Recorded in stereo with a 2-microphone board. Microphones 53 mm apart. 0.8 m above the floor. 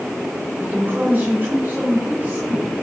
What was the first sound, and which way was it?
A woman speaking, 35° right (ahead or behind).